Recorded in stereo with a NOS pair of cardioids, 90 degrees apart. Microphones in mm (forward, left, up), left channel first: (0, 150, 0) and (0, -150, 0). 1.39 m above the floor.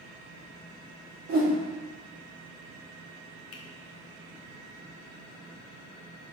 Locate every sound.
1.3 s a whoosh: 70° right, 1.2 m
3.5 s a finger snap: 55° left, 0.6 m